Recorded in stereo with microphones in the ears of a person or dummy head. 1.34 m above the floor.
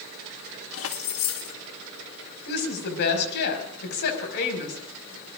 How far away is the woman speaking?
About 5 m.